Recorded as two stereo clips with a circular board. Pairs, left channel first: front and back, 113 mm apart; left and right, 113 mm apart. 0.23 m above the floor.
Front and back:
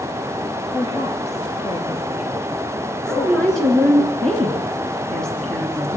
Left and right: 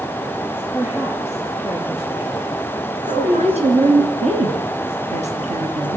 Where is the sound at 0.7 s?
25° right, 3 m; by 4.1 s 15° right, 4.5 m.